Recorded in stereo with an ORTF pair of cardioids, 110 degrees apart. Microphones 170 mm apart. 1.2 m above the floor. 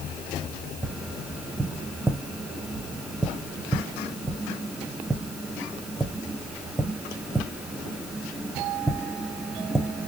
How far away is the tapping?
About 0.9 m.